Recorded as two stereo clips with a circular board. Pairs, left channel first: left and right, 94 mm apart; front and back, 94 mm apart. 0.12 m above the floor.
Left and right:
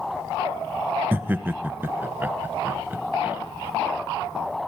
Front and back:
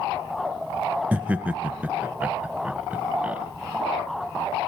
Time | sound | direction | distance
1.1 | laughter | 130° right | 1.1 m